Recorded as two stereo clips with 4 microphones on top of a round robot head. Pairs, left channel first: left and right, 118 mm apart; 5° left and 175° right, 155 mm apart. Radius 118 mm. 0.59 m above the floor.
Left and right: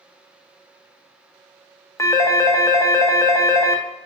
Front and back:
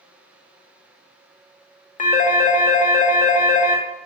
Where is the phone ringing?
25° left, 0.5 m.